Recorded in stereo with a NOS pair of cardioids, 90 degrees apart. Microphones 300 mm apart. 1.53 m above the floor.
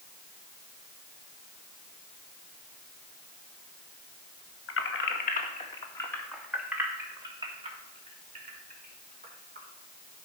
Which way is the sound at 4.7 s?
50° left.